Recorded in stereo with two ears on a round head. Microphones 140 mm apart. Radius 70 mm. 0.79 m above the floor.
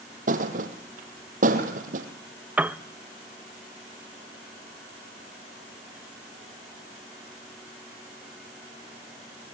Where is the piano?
10° right (ahead or behind), 0.5 m.